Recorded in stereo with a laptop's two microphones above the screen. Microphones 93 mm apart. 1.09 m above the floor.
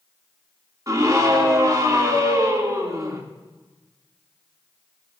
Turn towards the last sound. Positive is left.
turn(degrees=-40)  # may be behind; listen again after turning